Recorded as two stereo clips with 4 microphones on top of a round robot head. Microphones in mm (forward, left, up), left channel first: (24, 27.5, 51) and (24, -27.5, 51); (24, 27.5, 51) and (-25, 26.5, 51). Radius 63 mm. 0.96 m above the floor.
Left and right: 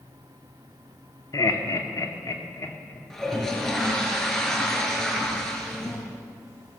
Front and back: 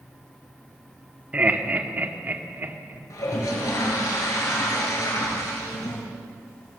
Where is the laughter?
120° left, 3 m; by 3.0 s 135° left, 3 m.